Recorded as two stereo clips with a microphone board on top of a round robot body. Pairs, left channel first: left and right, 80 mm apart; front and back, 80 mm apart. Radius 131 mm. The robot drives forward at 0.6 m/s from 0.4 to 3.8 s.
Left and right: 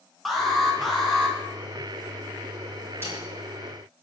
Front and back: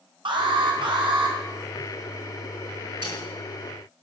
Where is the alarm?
Straight behind, 3.5 m.